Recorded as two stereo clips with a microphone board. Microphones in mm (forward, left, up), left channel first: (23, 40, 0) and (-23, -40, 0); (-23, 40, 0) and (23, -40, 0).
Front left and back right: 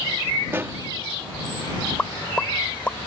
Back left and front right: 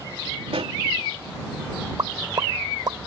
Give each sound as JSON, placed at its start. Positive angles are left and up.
{"t": 0.5, "sound": "a pop", "azimuth_deg": -55}
{"t": 2.0, "sound": "a pop", "azimuth_deg": -15}